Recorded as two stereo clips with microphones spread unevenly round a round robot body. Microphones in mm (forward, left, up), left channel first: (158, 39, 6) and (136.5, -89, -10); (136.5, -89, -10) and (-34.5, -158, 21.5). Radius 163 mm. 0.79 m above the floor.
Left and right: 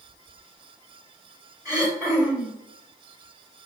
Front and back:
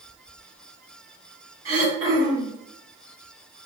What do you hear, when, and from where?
1.6 s throat clearing: straight behind, 2.5 m